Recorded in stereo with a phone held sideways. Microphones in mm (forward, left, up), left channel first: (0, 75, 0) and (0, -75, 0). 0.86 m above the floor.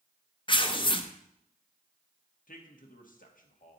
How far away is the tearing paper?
About 0.5 m.